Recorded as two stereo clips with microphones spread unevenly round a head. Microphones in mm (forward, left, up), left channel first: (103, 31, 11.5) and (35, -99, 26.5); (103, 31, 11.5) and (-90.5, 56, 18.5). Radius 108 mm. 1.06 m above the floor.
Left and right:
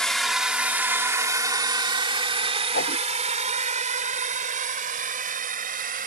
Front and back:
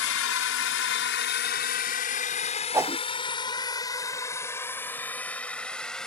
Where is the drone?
25° right; by 6.1 s 95° right.